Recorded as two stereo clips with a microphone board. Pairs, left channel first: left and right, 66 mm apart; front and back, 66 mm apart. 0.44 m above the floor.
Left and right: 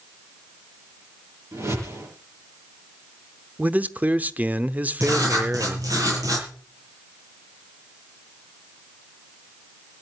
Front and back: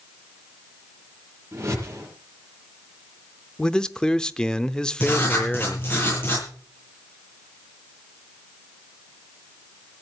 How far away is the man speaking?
About 0.8 m.